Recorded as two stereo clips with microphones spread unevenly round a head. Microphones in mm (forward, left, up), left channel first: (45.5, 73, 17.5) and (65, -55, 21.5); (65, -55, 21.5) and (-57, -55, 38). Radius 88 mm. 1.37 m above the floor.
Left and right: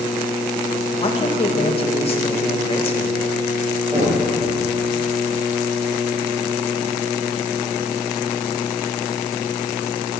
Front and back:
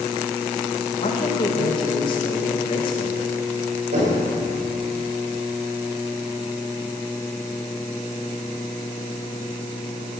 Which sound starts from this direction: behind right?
Knocking, at 3.9 s.